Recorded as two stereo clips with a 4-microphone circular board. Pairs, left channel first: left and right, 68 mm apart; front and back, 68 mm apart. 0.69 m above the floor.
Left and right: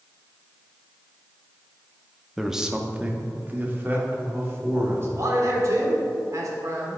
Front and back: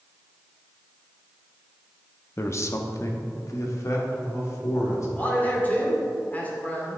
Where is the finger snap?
No finger snap in this recording.